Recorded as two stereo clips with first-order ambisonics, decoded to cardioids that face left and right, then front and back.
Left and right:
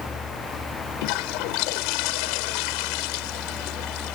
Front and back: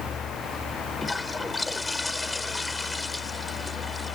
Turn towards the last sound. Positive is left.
turn(degrees=85)